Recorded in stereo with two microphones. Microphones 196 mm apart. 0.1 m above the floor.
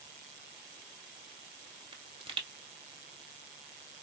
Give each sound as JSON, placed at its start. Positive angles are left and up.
{"t": 1.9, "sound": "a pop", "side_deg": -25, "distance_m": 1.2}